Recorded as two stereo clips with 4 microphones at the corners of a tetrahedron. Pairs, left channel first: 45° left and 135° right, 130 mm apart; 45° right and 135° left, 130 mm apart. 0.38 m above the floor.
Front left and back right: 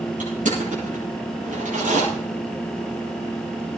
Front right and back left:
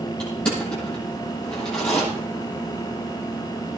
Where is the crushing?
125° right, 9.5 m.